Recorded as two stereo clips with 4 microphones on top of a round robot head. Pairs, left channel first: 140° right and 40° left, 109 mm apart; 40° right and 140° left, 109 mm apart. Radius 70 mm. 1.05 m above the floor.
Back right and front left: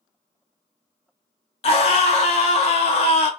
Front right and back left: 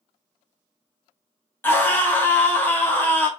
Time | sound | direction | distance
1.6 | a scream | 115° right | 0.8 m